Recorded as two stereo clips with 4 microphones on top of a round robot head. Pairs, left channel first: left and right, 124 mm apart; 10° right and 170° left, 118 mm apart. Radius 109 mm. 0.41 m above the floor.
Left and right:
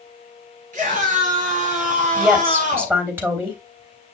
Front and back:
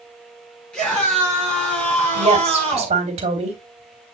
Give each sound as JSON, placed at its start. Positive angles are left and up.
{"t": 0.7, "sound": "a scream", "azimuth_deg": -95, "distance_m": 5.5}
{"t": 2.1, "sound": "a woman speaking", "azimuth_deg": -160, "distance_m": 2.5}